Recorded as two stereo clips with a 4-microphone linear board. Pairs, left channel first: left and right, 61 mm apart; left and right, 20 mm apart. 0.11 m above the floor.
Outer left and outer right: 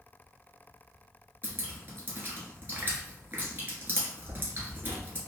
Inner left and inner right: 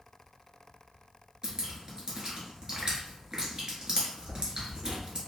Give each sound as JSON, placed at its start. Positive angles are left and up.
{"t": 1.4, "sound": "dripping", "side_deg": -35, "distance_m": 1.0}